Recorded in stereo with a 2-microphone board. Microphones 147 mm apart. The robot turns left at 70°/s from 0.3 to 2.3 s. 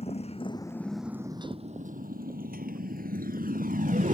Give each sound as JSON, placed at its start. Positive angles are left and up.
{"t": 0.0, "sound": "a motorcycle", "side_deg": 45}